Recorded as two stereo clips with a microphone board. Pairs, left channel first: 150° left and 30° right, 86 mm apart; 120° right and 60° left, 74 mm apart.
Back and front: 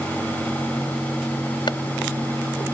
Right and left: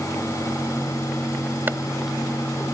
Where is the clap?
120° left.